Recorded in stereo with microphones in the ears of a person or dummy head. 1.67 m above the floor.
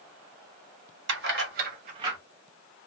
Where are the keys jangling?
60° right (ahead or behind), 1.4 m; by 2.2 s centre (ahead or behind), 0.5 m.